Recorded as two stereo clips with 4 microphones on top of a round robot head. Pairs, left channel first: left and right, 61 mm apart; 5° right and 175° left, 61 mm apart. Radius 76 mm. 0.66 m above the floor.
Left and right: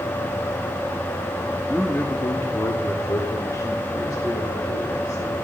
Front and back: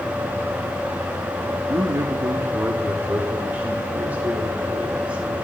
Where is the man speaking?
160° left, 1.0 m; by 5.3 s 105° left, 3.5 m.